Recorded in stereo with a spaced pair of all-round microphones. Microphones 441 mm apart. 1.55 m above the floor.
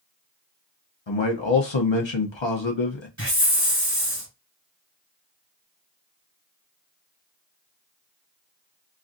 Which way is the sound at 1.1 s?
85° left.